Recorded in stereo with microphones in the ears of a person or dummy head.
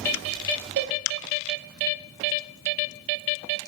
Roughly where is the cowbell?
Right.